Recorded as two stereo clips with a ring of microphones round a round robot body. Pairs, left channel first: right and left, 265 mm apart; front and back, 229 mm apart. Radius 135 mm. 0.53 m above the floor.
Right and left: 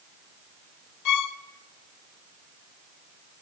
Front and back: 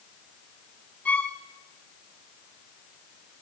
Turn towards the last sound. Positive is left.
turn(degrees=-85)